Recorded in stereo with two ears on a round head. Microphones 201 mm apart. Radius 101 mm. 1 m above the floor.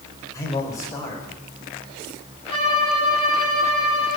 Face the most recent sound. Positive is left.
turn(degrees=25)  # may be behind; listen again after turning